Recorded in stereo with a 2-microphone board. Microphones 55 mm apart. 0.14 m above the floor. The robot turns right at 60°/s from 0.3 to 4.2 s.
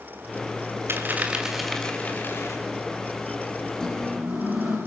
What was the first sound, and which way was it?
A dropped coin, 45° right.